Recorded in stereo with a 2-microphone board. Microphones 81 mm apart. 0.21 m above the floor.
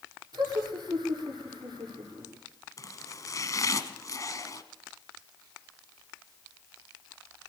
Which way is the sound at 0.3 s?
55° right (ahead or behind).